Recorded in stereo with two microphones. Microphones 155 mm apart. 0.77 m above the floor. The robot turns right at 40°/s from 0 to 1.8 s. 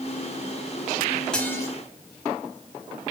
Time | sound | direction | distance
1.3 | dishes clattering | 5° left (ahead or behind) | 3.5 m